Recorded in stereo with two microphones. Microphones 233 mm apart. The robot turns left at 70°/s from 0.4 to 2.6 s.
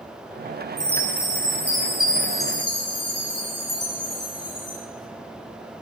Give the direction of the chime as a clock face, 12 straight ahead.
4 o'clock.